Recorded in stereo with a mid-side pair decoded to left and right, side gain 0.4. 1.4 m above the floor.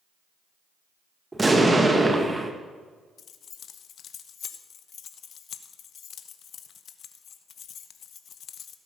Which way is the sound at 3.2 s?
65° left.